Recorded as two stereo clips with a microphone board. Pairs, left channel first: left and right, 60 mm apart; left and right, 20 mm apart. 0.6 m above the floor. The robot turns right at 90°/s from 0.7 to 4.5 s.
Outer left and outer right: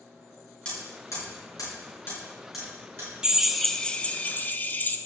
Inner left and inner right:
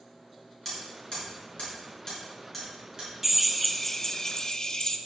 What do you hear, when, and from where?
0.7 s hammering: 15° left (ahead or behind), 5.5 m; by 3.1 s 50° right (ahead or behind), 5.5 m
3.2 s a drill: 25° right, 0.7 m; by 5.0 s 85° left, 0.7 m